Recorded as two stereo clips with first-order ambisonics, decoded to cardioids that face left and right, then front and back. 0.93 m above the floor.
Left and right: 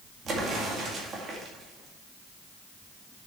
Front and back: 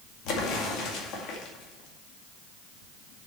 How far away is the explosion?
About 2 m.